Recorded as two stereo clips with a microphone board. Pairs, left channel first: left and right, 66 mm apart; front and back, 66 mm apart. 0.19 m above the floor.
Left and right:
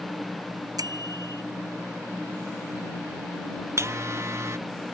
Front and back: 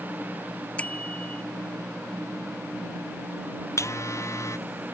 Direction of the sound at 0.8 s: 70° right.